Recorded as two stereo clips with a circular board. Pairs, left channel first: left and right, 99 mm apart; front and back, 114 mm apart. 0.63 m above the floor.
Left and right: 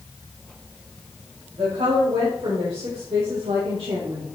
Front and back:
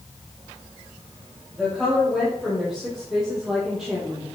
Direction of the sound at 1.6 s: 95° right.